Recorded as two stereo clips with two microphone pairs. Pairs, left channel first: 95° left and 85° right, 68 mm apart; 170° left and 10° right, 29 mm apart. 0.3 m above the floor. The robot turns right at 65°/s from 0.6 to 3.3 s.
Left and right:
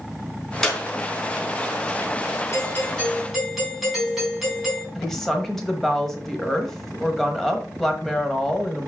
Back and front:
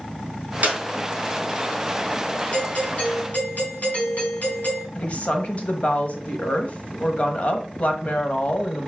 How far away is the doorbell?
About 3.5 m.